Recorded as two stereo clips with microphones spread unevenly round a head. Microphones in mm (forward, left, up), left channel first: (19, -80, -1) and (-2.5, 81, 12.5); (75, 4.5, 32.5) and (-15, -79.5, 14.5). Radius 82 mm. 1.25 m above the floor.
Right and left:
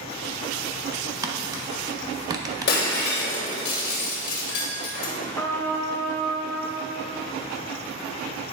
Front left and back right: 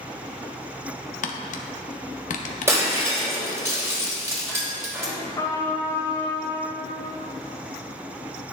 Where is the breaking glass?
65° right, 3 m.